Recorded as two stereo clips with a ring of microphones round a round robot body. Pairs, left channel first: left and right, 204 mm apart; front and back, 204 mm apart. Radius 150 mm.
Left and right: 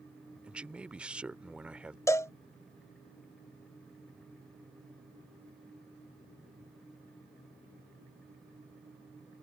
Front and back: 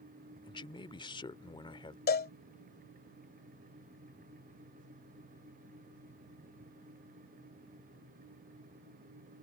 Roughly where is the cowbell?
Ahead.